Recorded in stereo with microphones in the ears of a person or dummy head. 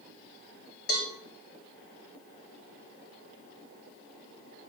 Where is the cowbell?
55° left (ahead or behind), 3 m.